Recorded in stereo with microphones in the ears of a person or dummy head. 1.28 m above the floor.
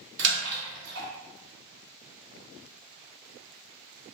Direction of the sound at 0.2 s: 65° right (ahead or behind).